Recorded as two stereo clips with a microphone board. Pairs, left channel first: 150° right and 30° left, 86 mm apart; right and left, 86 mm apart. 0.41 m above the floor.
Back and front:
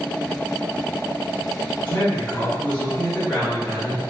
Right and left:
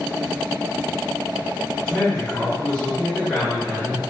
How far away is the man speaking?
About 1.1 m.